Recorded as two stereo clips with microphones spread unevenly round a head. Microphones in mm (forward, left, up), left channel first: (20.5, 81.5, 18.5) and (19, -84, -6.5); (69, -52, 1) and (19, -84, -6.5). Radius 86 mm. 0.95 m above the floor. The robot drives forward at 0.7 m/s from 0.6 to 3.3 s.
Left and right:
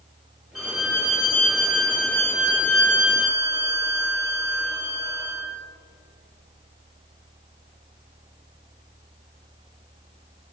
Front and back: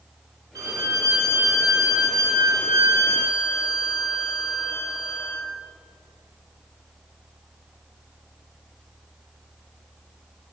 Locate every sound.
0.6 s a violin: straight behind, 2.5 m